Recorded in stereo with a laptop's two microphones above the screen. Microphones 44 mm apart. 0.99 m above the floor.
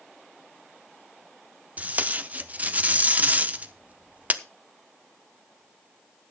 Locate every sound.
1.8 s tape being pulled: 35° right (ahead or behind), 0.6 m